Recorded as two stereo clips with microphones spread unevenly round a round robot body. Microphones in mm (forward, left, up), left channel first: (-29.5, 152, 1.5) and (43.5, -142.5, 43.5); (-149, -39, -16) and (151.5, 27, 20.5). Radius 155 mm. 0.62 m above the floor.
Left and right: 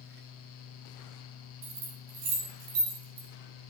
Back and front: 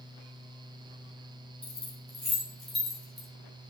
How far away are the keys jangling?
About 3.5 m.